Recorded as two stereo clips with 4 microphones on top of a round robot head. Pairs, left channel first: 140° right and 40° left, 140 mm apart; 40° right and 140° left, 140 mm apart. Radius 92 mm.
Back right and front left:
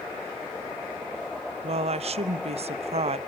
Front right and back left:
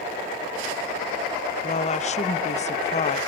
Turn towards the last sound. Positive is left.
turn(degrees=-5)